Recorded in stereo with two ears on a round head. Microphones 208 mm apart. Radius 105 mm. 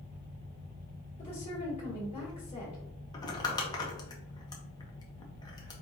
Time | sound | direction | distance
1.2 | a woman speaking | 25° left (ahead or behind) | 1.5 m
3.1 | crumpling | 15° left (ahead or behind) | 0.7 m